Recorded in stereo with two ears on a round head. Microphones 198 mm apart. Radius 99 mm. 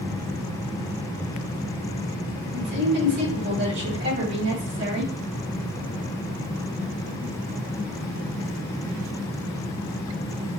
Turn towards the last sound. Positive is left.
turn(degrees=-55)  # may be behind; listen again after turning